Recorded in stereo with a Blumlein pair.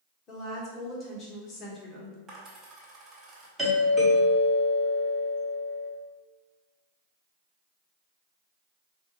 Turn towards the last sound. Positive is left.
turn(degrees=-5)